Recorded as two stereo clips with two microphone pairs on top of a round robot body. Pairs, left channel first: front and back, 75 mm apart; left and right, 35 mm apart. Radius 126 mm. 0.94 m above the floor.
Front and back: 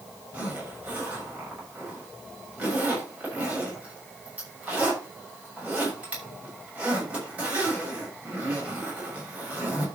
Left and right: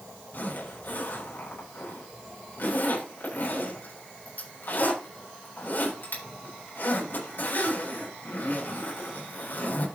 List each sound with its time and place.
0.3 s a zipper: 110° left, 6 m